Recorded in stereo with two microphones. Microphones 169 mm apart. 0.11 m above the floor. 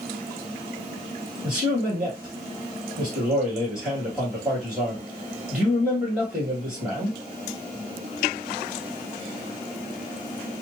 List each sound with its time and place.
1.4 s a man speaking: 5° right (ahead or behind), 2 m